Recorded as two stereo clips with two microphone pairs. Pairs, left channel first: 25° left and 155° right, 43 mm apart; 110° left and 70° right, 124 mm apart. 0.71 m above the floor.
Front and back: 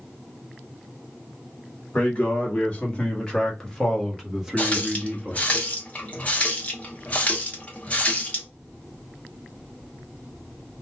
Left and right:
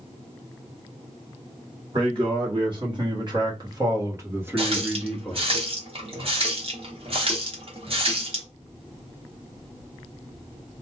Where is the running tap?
30° right, 1.1 m.